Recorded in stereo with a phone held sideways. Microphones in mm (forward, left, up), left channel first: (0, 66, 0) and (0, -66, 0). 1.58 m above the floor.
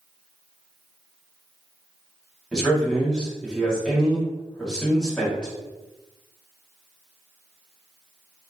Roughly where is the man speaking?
Centre.